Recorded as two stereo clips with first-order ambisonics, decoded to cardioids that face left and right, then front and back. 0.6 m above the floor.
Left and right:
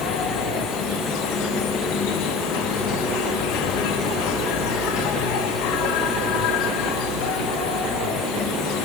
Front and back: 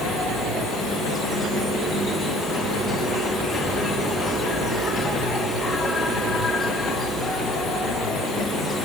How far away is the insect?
About 1.3 m.